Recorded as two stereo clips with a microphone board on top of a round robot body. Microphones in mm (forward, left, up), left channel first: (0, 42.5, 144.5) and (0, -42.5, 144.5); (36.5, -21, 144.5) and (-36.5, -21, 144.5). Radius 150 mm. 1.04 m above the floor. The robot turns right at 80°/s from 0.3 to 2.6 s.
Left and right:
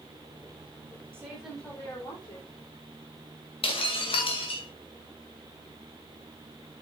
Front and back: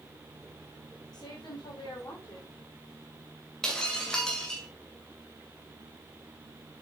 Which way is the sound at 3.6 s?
80° left.